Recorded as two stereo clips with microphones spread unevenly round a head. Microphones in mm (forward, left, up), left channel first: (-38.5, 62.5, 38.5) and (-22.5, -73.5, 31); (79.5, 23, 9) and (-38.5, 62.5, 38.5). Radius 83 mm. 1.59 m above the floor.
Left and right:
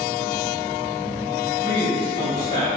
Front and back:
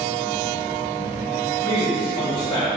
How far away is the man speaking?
About 1.3 m.